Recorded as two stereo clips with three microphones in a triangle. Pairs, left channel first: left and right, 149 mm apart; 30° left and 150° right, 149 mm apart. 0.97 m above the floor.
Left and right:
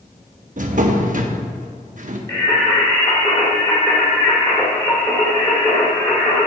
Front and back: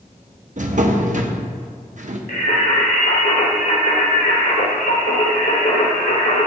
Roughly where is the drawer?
Behind right.